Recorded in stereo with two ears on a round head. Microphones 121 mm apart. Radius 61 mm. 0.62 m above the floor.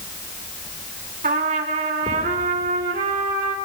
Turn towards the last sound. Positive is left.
turn(degrees=-60)  # may be behind; listen again after turning